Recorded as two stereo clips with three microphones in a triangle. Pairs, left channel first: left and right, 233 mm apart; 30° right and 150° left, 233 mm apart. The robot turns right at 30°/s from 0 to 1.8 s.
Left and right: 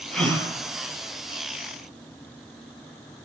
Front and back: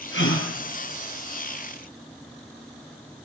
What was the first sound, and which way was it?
A gasp, straight ahead.